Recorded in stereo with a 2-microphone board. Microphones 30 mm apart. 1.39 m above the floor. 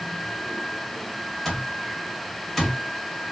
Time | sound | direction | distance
1.4 | an alarm clock | 10° left (ahead or behind) | 1.2 m